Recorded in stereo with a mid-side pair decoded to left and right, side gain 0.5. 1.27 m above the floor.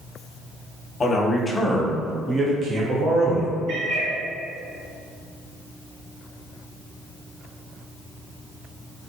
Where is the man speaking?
35° left, 0.8 m; by 3.5 s 65° right, 1.0 m.